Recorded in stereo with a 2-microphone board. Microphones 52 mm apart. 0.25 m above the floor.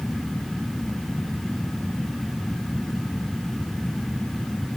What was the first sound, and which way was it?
Only background noise.